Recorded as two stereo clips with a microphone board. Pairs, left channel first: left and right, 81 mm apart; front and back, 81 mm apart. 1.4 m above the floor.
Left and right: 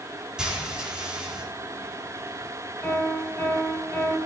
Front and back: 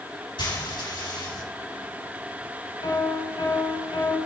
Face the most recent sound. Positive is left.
turn(degrees=20)